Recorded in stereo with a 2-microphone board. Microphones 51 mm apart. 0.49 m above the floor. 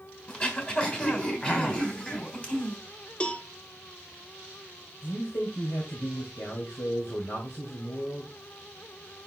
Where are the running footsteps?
No running footsteps in this recording.